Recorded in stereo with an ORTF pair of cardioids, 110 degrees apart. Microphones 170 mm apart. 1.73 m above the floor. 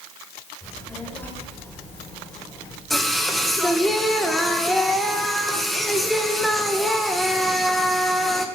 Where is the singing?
Straight ahead, 2 m.